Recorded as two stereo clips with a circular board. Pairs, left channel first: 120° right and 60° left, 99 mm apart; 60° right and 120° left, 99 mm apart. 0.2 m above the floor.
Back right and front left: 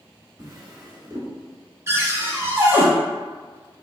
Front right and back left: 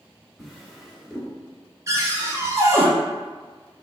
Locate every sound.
0.4 s a drawer: 30° left, 1.0 m
1.9 s a cupboard door: 95° left, 0.8 m